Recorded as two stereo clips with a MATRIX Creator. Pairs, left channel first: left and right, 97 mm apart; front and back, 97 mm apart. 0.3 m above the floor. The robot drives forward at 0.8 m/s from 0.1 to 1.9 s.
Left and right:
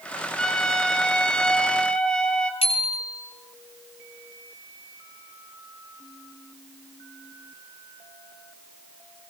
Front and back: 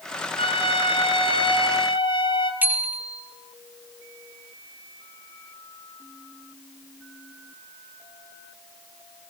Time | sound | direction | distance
0.4 | a trumpet | 5° left | 3.5 m
2.6 | a bicycle bell | 105° left | 4.5 m